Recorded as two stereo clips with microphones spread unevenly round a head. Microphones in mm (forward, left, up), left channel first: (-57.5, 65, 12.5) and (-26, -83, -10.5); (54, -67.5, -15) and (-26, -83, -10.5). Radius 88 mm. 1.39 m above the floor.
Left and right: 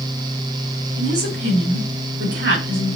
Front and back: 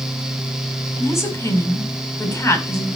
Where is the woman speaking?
45° right, 5 m.